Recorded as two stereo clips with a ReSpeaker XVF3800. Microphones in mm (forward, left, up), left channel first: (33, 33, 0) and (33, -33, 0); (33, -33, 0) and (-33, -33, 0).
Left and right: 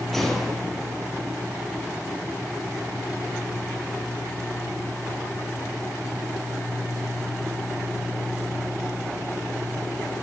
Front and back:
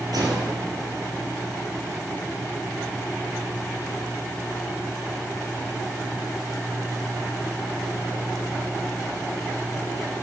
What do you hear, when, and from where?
0.1 s a gunshot: 175° left, 5 m